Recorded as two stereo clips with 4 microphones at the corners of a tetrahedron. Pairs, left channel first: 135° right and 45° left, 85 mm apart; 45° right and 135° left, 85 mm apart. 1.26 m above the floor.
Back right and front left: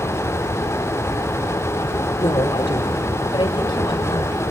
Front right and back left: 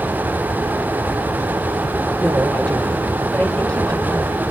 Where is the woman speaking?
125° right, 3.5 m.